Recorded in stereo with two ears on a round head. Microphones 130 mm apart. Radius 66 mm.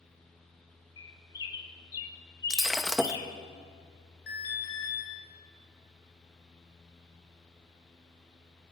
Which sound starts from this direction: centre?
Breaking glass, at 2.5 s.